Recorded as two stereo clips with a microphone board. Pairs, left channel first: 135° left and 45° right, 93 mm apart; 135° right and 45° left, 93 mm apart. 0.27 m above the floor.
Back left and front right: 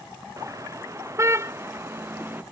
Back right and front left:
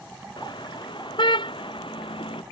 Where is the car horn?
100° right; by 2.4 s 115° right.